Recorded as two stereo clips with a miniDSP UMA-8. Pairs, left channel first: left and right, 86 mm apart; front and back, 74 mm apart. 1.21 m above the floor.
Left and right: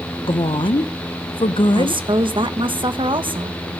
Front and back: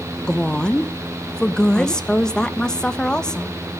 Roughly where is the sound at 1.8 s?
Right.